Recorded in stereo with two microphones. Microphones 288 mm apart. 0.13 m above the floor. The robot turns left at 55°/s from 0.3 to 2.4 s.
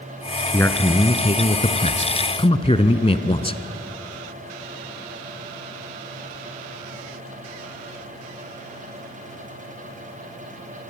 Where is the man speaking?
5° left (ahead or behind), 1.1 m; by 3.6 s 20° left (ahead or behind), 1.1 m.